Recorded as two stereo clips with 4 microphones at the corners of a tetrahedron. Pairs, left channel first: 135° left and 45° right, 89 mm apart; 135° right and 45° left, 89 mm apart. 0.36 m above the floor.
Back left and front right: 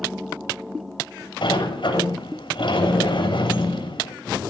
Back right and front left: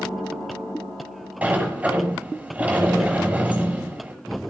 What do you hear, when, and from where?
1.4 s a sliding door: 115° left, 6 m